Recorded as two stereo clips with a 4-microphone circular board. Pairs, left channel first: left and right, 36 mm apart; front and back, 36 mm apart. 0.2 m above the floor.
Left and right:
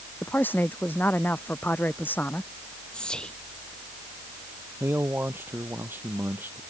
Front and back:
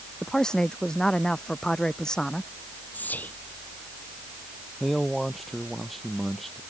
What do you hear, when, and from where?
0.2 s a man speaking: 70° left
2.9 s whispering: 25° left
4.8 s a man speaking: 85° right